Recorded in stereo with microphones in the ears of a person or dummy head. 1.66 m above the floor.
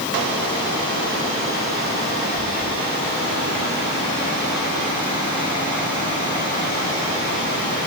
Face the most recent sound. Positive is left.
No sound to turn to.